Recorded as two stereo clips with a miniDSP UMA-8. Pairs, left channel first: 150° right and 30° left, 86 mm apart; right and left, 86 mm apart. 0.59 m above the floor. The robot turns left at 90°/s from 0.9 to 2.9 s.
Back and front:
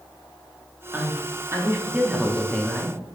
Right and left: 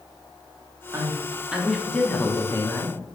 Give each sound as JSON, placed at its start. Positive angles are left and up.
{"t": 0.9, "sound": "a man speaking", "azimuth_deg": 65, "distance_m": 0.9}